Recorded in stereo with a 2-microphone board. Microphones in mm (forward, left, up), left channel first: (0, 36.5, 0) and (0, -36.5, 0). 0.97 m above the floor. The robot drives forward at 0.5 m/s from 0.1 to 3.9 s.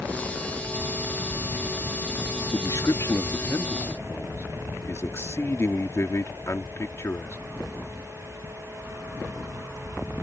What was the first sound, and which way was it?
A man speaking, 55° left (ahead or behind).